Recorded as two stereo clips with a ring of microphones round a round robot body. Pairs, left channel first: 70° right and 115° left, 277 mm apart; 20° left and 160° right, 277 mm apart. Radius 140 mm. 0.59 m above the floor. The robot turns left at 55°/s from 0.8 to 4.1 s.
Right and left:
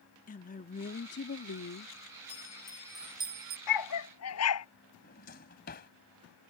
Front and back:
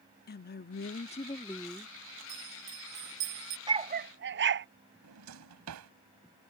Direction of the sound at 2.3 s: 120° right.